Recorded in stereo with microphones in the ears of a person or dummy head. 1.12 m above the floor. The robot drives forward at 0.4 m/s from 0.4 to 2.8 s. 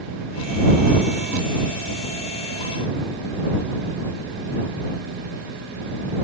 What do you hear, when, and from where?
Only background noise.